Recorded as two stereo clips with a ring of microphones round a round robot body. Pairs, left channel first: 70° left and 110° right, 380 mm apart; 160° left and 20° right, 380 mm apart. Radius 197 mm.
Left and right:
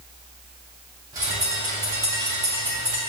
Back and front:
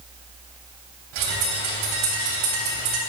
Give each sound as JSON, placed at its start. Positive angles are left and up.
{"t": 1.1, "sound": "a bird", "azimuth_deg": -30, "distance_m": 2.5}